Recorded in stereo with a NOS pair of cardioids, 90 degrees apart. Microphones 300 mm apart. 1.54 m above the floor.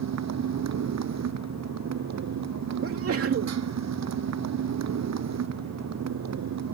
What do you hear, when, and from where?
0.0 s a motorcycle: 60° right
2.8 s a sneeze: 50° right